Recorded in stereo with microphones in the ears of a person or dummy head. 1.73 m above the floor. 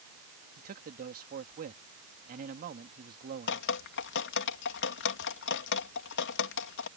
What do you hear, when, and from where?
0.6 s a man speaking: 45° right (ahead or behind)
3.5 s dripping: 60° left (ahead or behind)